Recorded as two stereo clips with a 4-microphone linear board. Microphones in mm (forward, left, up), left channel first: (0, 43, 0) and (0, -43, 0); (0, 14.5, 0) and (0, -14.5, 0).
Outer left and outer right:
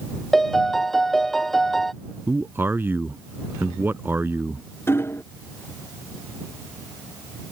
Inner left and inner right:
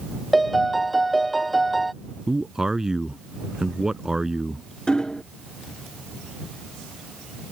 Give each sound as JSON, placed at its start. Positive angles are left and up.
{"t": 0.3, "sound": "a piano", "side_deg": 5}
{"t": 2.3, "sound": "a man speaking", "side_deg": -25}
{"t": 4.9, "sound": "hammering", "side_deg": 30}